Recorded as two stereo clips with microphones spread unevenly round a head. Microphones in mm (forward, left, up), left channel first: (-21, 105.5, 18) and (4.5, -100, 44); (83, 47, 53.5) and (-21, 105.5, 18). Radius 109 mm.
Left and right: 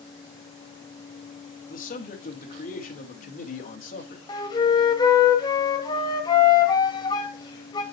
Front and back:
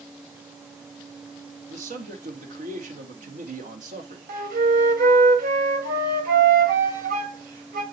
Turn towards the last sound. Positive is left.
turn(degrees=170)